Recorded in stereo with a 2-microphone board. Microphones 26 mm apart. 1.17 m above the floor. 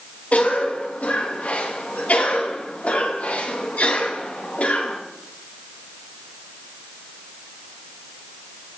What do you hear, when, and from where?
0.3 s a cough: 65° left (ahead or behind), 2 m